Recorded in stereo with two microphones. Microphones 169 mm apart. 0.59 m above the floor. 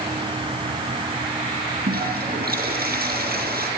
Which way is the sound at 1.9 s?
65° right (ahead or behind).